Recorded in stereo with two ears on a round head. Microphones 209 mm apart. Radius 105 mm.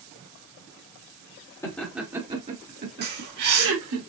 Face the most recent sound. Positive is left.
turn(degrees=-45)  # may be behind; listen again after turning